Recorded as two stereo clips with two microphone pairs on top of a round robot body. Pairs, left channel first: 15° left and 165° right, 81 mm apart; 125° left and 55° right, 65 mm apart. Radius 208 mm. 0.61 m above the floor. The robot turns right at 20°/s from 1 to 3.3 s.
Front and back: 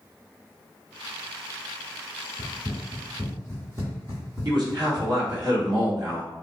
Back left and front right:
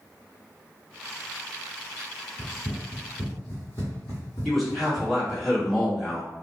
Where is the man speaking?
145° right, 1.8 m.